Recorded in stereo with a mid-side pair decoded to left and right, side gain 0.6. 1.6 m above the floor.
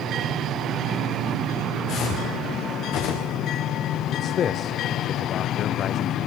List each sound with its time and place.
1.9 s footsteps: 55° left, 7 m; by 3.4 s 75° left, 7 m
4.1 s a man speaking: 45° left, 0.7 m